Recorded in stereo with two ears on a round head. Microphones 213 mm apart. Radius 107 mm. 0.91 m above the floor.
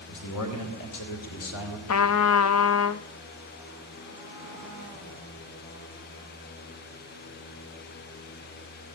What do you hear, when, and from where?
0.1 s a man speaking: 80° left, 4 m; by 1.8 s 65° left (ahead or behind), 3 m
1.9 s a trumpet: 65° left (ahead or behind), 0.6 m